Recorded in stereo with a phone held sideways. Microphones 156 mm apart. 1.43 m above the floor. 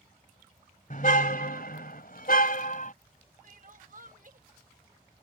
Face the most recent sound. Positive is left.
turn(degrees=-55)  # may be behind; listen again after turning